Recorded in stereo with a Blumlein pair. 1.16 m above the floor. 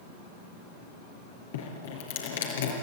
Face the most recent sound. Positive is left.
turn(degrees=60)